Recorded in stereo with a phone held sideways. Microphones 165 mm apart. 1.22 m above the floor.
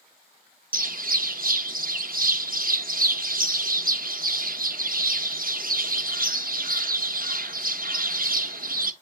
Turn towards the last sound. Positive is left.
turn(degrees=-65)  # may be behind; listen again after turning